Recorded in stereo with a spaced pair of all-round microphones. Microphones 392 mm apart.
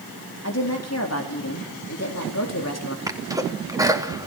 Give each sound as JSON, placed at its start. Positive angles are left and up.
{"t": 0.4, "sound": "a woman speaking", "side_deg": 40, "distance_m": 4.5}
{"t": 3.1, "sound": "a sneeze", "side_deg": -10, "distance_m": 3.0}